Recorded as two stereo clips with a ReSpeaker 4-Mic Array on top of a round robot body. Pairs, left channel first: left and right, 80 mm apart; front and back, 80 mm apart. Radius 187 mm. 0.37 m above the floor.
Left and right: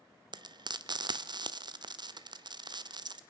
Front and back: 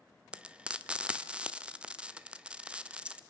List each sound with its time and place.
0.3 s frying: 105° right, 1.2 m